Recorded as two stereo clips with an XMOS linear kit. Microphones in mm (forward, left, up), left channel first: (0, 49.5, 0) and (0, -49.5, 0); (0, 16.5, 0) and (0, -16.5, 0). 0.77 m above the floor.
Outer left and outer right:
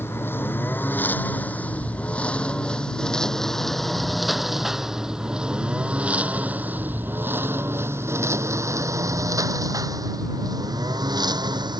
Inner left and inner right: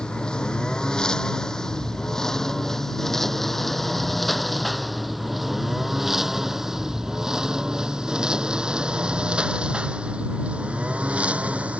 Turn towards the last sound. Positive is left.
turn(degrees=-50)  # may be behind; listen again after turning